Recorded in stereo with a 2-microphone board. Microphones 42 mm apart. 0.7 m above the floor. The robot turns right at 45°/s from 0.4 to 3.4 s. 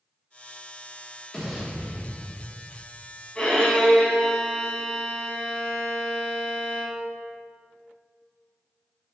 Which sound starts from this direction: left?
A violin, at 3.4 s.